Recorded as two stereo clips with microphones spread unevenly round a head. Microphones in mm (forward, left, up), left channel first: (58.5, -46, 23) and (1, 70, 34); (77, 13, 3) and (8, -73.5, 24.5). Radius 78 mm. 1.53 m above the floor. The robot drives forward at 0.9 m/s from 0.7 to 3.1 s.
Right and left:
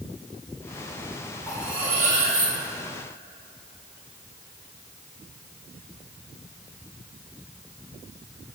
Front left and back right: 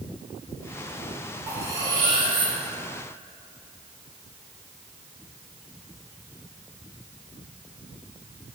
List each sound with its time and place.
1.5 s cutlery clinking: 160° right, 0.6 m; by 2.5 s 175° right, 1.4 m